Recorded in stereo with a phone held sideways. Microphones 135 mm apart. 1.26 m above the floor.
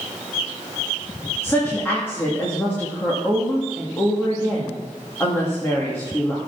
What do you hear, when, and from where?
1.4 s a woman speaking: 15° left (ahead or behind), 2.5 m